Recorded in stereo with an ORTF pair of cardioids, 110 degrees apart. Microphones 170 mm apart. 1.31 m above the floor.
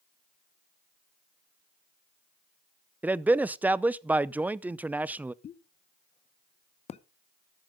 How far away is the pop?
About 0.8 m.